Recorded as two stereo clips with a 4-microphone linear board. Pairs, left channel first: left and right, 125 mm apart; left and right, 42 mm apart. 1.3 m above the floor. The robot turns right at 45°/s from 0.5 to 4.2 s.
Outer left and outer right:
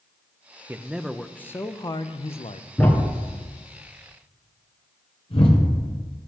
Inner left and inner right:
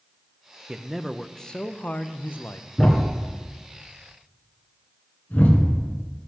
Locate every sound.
0.7 s a man speaking: 20° right, 0.5 m; by 2.7 s 70° left, 0.5 m
2.8 s a thud: 10° left (ahead or behind), 1.8 m; by 5.9 s 50° left (ahead or behind), 1.8 m